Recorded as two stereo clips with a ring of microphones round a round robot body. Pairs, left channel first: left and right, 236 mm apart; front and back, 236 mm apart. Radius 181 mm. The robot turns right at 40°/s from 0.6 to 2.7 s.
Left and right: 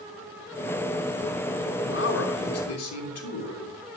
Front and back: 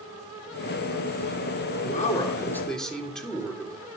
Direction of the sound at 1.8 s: 55° left.